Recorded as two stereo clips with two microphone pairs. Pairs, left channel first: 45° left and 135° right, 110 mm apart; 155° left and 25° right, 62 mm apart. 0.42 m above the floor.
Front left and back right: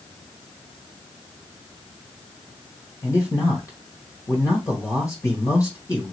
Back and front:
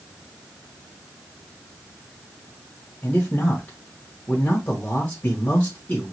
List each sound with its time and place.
3.0 s a man speaking: 95° left, 1.6 m